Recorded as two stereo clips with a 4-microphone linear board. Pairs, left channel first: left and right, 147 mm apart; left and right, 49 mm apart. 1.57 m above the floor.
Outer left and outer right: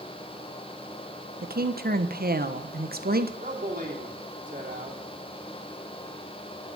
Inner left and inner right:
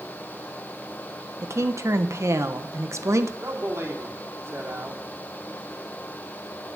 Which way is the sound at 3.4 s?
60° right (ahead or behind).